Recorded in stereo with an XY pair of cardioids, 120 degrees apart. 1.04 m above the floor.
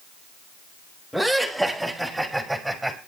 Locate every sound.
1.1 s laughter: 5° left, 5.5 m; by 3.0 s 5° right, 6 m